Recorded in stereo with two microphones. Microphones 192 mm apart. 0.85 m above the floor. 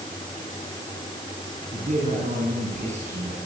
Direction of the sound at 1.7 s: 45° right (ahead or behind).